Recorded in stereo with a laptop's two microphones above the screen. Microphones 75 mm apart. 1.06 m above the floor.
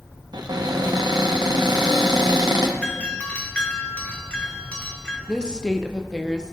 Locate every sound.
0.3 s a cupboard door: 75° right (ahead or behind), 0.8 m
2.8 s a doorbell: 20° left (ahead or behind), 0.9 m
5.3 s a woman speaking: 10° left (ahead or behind), 0.5 m